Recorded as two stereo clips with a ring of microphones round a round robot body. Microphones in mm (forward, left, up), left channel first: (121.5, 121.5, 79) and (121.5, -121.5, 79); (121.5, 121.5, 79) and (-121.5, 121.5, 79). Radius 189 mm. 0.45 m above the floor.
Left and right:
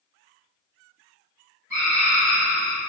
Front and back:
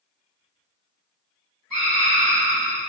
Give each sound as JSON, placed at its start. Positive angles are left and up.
{"t": 1.7, "sound": "a scream", "azimuth_deg": -120, "distance_m": 1.9}